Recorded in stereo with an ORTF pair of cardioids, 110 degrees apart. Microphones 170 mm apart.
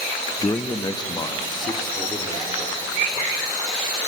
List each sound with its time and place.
0.4 s a man speaking: 20° left, 0.7 m; by 3.3 s 25° left, 4.5 m